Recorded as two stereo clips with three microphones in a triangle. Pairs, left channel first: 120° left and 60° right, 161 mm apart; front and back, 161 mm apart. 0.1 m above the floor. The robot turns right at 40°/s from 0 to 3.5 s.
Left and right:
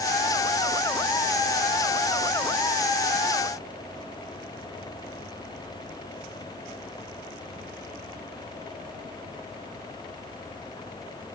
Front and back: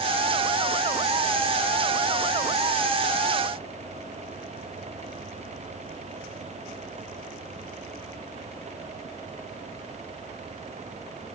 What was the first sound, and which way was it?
Only background noise.